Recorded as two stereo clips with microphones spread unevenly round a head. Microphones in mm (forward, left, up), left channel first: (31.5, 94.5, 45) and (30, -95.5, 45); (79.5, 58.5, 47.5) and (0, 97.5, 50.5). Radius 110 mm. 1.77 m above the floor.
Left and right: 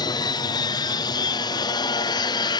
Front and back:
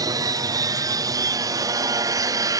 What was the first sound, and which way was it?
An aircraft, 150° left.